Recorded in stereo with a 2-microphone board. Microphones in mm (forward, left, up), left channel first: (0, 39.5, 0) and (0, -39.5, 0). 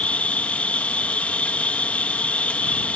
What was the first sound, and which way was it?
An insect, 15° left (ahead or behind).